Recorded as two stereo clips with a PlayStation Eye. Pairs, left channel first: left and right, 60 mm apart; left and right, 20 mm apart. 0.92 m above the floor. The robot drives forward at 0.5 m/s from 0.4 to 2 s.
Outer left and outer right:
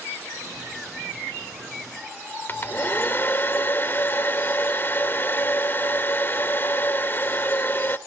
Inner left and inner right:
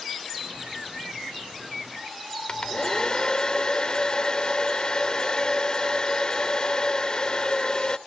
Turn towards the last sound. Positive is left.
turn(degrees=35)  # may be behind; listen again after turning